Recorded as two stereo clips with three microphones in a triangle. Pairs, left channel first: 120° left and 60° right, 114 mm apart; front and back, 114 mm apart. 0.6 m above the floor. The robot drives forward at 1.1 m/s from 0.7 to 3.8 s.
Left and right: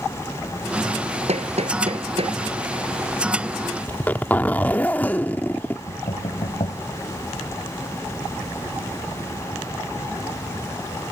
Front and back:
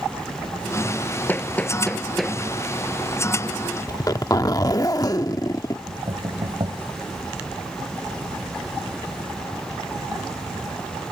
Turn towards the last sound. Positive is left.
turn(degrees=140)